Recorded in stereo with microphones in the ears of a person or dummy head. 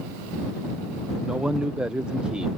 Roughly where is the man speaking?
Centre.